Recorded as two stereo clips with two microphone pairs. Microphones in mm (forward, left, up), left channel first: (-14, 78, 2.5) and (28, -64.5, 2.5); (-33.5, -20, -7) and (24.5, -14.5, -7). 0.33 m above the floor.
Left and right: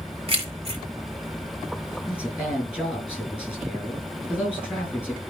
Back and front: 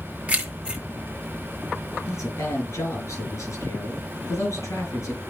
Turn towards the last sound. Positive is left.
turn(degrees=-155)